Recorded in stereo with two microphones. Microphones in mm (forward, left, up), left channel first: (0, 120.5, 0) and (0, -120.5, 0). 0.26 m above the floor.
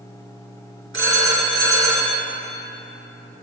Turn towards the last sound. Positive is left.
turn(degrees=-55)  # may be behind; listen again after turning